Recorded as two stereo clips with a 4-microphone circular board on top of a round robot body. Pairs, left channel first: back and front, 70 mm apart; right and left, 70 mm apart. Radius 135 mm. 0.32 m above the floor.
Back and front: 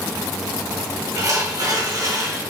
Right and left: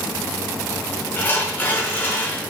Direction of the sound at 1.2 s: 30° right.